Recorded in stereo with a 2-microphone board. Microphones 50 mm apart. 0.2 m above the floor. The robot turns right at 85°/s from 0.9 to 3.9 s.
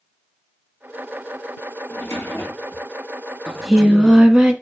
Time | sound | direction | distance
1.9 | a drawer | 55° left | 1.7 m
3.5 | singing | 165° left | 0.6 m